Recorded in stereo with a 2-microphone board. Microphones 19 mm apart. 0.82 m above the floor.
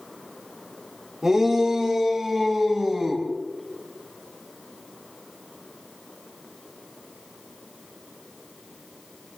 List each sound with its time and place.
1.2 s a shout: 30° right (ahead or behind), 3 m; by 3.2 s 20° right (ahead or behind), 5.5 m